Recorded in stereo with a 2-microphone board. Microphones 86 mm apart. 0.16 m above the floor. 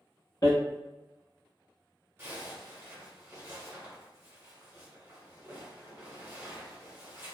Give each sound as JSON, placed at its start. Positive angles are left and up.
{"t": 0.4, "sound": "hammering", "side_deg": 50, "distance_m": 1.0}
{"t": 2.2, "sound": "a zipper", "side_deg": -30, "distance_m": 1.3}